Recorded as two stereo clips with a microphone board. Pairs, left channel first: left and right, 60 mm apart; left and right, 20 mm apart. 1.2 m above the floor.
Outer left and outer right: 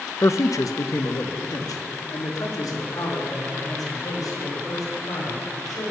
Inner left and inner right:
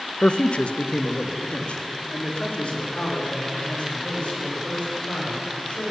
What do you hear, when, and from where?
0.2 s a man speaking: 50° left (ahead or behind), 0.6 m; by 5.9 s 90° left, 5.5 m